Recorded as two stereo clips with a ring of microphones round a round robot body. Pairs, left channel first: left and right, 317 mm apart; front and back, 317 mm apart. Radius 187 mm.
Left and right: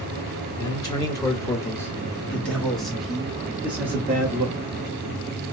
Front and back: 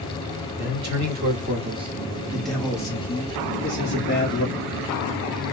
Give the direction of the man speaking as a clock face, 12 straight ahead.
7 o'clock.